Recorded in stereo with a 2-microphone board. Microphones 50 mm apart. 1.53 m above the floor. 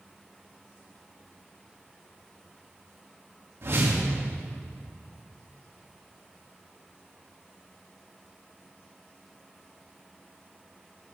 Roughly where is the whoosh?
Right.